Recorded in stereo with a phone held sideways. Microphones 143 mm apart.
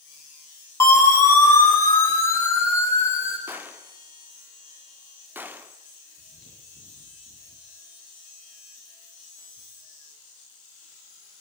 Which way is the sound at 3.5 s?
15° right (ahead or behind).